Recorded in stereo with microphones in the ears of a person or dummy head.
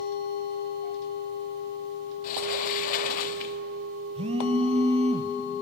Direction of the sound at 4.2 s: 35° right (ahead or behind).